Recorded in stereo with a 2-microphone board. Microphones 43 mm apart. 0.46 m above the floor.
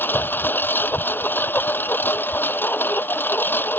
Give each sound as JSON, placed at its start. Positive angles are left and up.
{"t": 0.0, "sound": "a lawn mower", "side_deg": 50}